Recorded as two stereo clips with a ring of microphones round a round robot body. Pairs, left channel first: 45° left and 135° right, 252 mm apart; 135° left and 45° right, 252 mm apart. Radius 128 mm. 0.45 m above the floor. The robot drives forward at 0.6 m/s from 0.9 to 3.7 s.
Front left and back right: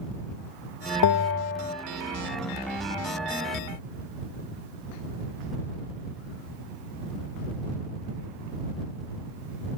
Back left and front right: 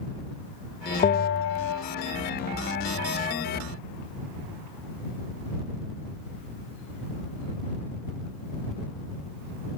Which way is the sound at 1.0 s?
70° left.